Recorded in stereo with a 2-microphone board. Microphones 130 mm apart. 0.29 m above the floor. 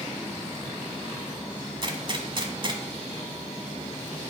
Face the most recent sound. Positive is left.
turn(degrees=-40)  # may be behind; listen again after turning